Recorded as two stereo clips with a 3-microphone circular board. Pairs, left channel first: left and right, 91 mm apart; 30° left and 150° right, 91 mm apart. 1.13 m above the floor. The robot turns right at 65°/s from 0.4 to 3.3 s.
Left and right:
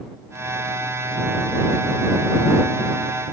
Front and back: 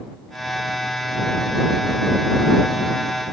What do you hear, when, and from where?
Only background noise.